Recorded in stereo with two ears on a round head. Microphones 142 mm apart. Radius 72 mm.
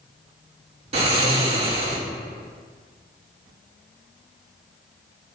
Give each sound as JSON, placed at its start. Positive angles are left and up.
{"t": 0.9, "sound": "snoring", "side_deg": -40, "distance_m": 1.9}